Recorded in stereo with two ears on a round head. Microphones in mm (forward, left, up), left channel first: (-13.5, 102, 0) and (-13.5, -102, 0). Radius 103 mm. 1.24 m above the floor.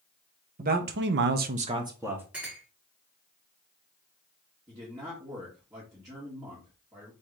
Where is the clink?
5° right (ahead or behind), 1.7 m.